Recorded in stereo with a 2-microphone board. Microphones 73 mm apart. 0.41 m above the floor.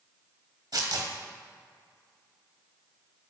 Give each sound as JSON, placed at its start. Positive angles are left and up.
{"t": 0.7, "sound": "tearing paper", "side_deg": -65, "distance_m": 1.1}